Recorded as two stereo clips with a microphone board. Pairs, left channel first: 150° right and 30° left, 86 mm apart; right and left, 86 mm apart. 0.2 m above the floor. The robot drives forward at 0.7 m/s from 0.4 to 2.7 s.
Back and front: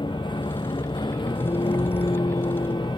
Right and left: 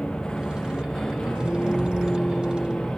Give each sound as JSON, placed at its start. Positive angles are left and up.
{"t": 0.0, "sound": "a vehicle", "azimuth_deg": -170}